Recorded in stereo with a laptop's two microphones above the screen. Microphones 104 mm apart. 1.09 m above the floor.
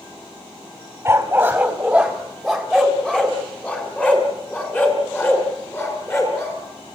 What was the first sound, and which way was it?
A dog barking, 25° right (ahead or behind).